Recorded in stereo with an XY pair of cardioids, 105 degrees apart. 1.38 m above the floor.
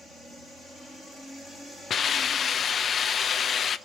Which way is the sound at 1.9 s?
50° left.